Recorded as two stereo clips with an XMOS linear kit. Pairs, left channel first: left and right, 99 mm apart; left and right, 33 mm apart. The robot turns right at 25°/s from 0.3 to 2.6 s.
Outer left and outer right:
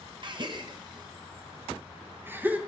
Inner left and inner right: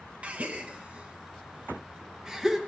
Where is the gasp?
50° right (ahead or behind), 0.7 m; by 2.6 s 15° right (ahead or behind), 0.7 m.